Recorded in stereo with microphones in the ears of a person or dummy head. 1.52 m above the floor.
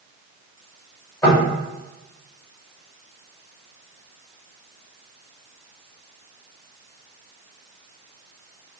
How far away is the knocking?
About 1.8 m.